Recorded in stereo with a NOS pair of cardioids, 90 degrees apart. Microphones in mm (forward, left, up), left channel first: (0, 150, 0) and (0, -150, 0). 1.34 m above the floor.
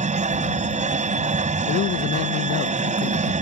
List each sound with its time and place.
0.0 s a machine running: 25° right
1.7 s a man speaking: 65° left